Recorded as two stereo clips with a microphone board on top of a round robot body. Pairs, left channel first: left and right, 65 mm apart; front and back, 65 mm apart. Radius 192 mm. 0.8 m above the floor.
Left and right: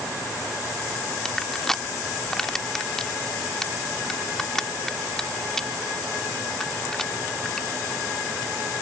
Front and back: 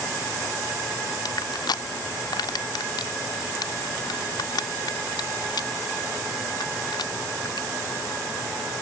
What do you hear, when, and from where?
1.2 s crushing: 10° left